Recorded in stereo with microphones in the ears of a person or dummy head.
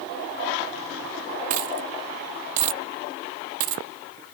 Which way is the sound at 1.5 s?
45° right (ahead or behind).